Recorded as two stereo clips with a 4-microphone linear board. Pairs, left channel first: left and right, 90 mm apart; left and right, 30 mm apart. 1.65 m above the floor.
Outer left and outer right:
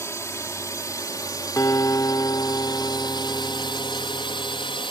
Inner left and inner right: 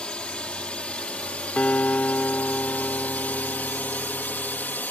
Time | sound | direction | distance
0.0 | a drone | 35° left (ahead or behind) | ?
1.6 | a guitar | 40° left (ahead or behind) | ?